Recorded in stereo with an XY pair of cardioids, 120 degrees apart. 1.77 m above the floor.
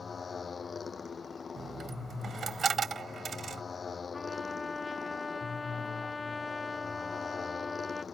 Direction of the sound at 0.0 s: 30° left.